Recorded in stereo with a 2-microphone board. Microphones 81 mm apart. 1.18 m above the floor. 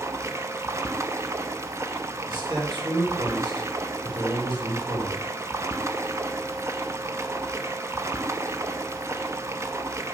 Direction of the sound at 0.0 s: 35° right (ahead or behind).